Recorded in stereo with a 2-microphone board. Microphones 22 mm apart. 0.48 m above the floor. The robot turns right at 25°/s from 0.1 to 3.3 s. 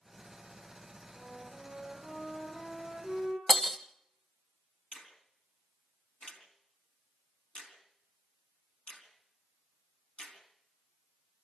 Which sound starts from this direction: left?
A finger snap, at 4.9 s.